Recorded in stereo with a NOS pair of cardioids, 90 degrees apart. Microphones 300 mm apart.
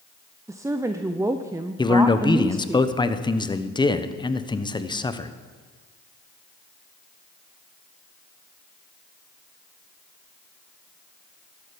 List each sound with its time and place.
0.5 s a woman speaking: 10° right, 0.6 m
1.8 s a man speaking: 15° left, 1.0 m